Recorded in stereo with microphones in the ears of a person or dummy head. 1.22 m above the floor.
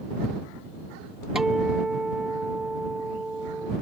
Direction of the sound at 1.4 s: 5° right (ahead or behind).